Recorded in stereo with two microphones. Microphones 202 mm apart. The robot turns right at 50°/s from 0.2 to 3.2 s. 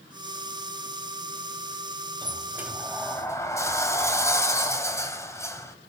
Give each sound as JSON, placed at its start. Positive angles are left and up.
{"t": 2.2, "sound": "a sliding door", "azimuth_deg": -30, "distance_m": 2.0}